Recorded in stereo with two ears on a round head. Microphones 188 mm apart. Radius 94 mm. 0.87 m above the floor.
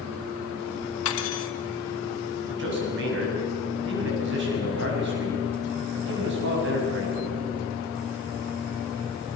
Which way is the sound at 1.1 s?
70° left (ahead or behind).